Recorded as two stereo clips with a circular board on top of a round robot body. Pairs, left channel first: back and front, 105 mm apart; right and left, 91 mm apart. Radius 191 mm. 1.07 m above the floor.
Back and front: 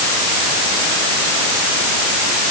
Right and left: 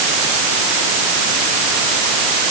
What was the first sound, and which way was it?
Only background noise.